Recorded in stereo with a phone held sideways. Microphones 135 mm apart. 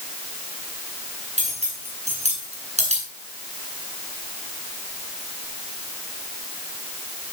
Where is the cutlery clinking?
60° right (ahead or behind), 5.5 m.